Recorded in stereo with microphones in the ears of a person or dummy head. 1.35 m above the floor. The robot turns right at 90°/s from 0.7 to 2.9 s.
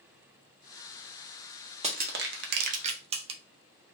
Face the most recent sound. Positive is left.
turn(degrees=-35)  # may be behind; listen again after turning